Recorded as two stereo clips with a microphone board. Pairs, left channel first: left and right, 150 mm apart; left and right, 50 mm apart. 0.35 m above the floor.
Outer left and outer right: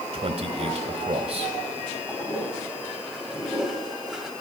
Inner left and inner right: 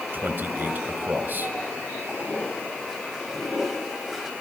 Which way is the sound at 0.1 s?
45° right (ahead or behind).